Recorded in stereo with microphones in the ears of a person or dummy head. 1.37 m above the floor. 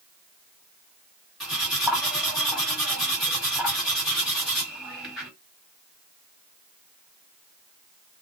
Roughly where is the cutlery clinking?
Centre.